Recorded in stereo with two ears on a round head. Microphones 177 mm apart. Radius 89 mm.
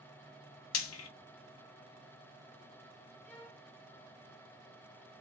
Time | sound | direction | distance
0.7 | frying | 75° left (ahead or behind) | 1.0 m
3.2 | a violin | 10° left (ahead or behind) | 1.9 m